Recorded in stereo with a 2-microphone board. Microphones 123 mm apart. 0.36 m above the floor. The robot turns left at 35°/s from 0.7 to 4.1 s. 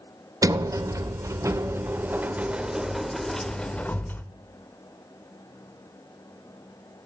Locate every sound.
0.4 s a sliding door: 25° right (ahead or behind), 0.5 m; by 4.2 s 15° left (ahead or behind), 0.5 m